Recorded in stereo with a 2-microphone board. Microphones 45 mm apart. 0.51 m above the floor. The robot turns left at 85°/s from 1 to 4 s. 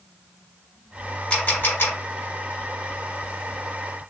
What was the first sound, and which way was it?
A camera shutter, 15° left (ahead or behind).